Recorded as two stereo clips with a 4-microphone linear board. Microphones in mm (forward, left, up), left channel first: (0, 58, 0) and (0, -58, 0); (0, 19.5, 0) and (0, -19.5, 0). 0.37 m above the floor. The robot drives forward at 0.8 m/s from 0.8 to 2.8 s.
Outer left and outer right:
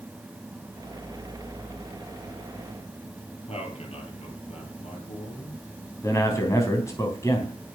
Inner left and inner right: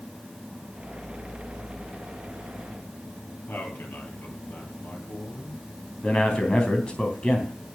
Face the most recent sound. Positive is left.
turn(degrees=25)  # may be behind; listen again after turning